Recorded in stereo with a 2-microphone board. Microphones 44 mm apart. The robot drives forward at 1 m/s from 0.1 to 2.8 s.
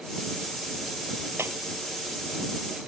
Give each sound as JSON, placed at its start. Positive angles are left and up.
{"t": 1.4, "sound": "breaking glass", "side_deg": -70}